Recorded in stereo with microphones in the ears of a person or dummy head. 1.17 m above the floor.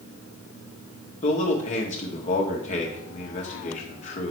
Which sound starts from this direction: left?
A man speaking, at 1.2 s.